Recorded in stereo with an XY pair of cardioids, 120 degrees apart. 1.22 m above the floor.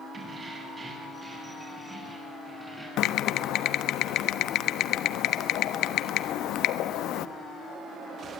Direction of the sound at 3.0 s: 70° left.